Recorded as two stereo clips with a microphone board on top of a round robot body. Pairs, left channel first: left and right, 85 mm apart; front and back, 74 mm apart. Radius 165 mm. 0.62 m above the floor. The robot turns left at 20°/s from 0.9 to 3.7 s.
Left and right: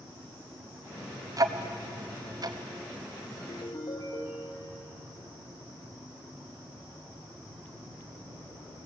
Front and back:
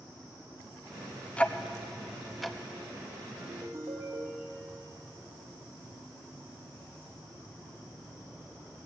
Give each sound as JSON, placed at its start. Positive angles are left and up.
{"t": 1.4, "sound": "ticking", "azimuth_deg": -70, "distance_m": 0.9}
{"t": 3.4, "sound": "a ringtone", "azimuth_deg": 135, "distance_m": 1.4}